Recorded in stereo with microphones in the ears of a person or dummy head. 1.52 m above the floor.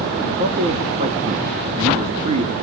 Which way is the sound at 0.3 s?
35° right (ahead or behind).